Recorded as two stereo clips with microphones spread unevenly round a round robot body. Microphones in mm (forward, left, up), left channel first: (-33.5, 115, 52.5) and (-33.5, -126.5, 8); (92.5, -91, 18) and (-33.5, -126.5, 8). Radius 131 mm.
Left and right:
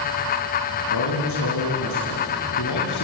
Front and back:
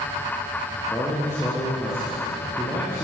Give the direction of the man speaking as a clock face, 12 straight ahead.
9 o'clock.